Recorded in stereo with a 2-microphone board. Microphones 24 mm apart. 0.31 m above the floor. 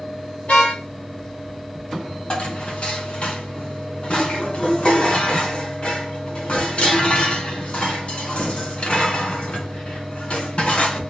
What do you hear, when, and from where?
0.5 s a car horn: 70° left (ahead or behind), 6 m
2.3 s dishes clattering: 55° left (ahead or behind), 2.5 m